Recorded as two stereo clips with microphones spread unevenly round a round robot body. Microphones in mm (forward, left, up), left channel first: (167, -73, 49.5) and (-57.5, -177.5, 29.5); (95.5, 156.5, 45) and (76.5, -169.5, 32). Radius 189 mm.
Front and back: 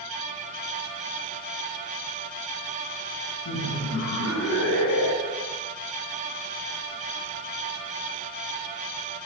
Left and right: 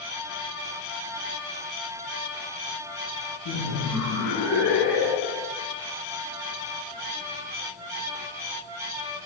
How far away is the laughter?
About 8 m.